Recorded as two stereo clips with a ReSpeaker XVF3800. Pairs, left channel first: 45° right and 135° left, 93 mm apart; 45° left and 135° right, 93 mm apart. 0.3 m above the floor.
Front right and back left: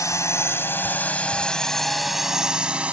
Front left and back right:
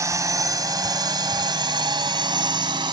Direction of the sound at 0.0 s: 90° right.